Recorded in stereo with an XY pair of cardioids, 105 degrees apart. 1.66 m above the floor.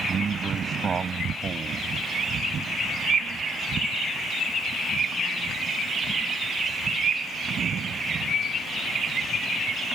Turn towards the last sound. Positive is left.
turn(degrees=-40)